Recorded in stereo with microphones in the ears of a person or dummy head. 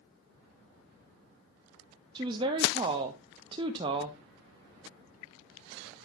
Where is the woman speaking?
35° right (ahead or behind), 0.8 m.